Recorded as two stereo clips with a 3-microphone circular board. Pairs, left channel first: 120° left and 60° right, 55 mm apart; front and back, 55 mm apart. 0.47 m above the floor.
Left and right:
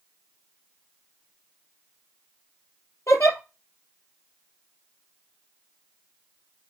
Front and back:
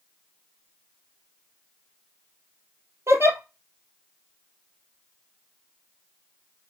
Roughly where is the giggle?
Behind left.